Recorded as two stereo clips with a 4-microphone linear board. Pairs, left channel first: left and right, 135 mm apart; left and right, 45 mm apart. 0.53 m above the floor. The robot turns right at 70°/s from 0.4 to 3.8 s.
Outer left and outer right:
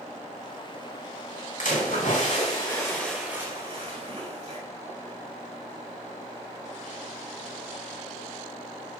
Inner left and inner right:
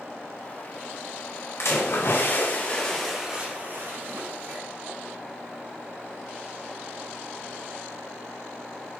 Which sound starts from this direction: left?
A splash, at 1.6 s.